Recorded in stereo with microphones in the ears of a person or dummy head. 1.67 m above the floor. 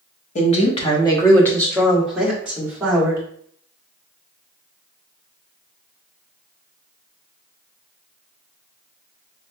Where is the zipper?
No zipper in this recording.